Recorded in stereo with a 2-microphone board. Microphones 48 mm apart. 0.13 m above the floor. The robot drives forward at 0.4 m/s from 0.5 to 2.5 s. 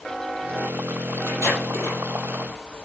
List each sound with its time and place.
1.3 s tape being pulled: 65° right (ahead or behind), 4.5 m